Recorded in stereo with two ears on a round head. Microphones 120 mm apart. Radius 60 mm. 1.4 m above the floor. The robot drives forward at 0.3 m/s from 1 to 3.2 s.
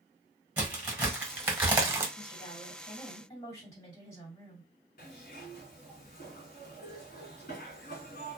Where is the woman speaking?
30° left (ahead or behind), 1.4 m; by 4.7 s 25° left (ahead or behind), 1.7 m.